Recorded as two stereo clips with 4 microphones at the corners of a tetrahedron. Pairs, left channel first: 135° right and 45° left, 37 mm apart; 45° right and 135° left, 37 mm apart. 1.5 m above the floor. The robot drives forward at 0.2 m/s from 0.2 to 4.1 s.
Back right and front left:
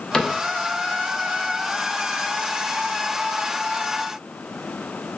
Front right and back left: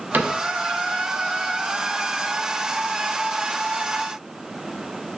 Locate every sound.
0.1 s a cupboard door: 155° left, 0.6 m